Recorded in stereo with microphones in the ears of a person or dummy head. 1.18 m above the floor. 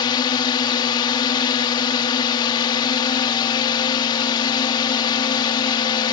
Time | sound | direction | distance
0.0 | a drone | 30° left (ahead or behind) | ?